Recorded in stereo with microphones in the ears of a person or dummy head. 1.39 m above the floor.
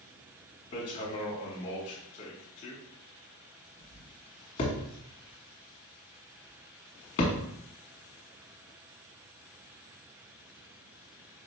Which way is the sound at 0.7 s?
30° left (ahead or behind).